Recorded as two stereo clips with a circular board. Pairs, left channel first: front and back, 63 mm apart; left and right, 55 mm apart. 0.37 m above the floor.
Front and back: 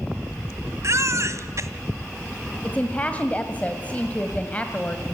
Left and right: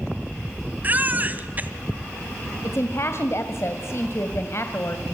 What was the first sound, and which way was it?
A baby crying, 145° right.